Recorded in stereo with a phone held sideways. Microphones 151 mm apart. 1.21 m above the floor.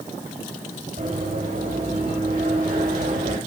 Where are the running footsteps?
70° right (ahead or behind), 7 m; by 3.4 s 85° right, 8.5 m.